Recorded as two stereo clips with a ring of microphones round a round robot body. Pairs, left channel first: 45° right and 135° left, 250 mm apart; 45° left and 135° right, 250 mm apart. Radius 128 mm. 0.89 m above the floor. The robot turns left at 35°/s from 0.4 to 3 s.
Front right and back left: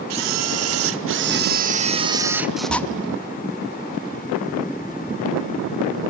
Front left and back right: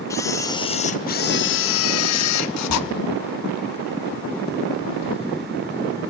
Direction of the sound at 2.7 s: 85° left.